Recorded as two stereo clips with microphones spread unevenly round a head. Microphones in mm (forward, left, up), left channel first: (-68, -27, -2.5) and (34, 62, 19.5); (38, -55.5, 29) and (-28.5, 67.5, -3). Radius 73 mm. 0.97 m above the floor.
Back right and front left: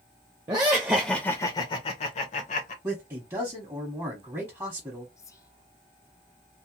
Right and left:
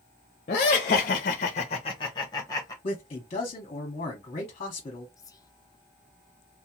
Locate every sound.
0.5 s laughter: 20° right, 0.6 m; by 2.7 s 135° right, 1.0 m
2.8 s a man speaking: 30° right, 0.9 m
5.2 s whispering: 130° right, 0.5 m